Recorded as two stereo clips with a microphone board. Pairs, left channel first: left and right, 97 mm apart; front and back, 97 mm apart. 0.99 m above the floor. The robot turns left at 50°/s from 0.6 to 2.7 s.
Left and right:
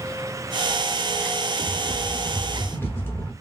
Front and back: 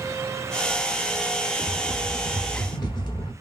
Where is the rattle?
75° left, 0.9 m; by 3.3 s 25° left, 0.9 m.